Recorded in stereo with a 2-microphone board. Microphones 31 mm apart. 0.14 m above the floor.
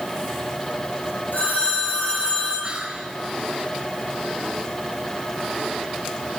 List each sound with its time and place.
1.3 s a phone ringing: 80° left, 5.5 m
2.6 s whispering: 35° right (ahead or behind), 1.2 m